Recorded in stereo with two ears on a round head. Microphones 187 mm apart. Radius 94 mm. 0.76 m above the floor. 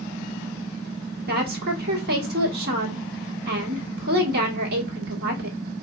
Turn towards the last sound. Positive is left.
turn(degrees=-50)  # may be behind; listen again after turning